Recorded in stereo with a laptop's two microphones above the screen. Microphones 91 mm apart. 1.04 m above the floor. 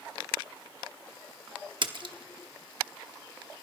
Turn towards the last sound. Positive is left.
turn(degrees=-55)  # may be behind; listen again after turning